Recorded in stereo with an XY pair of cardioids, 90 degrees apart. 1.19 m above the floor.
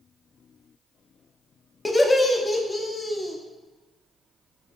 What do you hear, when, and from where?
1.9 s laughter: 20° left, 0.5 m